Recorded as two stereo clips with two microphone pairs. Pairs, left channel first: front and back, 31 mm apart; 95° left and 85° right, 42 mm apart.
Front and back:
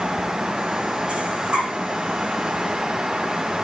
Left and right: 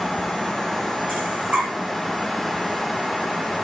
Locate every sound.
1.1 s breathing: 125° right, 5.5 m